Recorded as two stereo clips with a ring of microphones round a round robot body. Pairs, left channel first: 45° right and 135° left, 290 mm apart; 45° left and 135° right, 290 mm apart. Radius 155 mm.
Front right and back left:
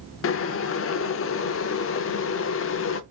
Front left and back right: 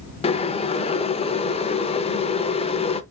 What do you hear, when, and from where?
0.2 s boiling: 20° right, 0.6 m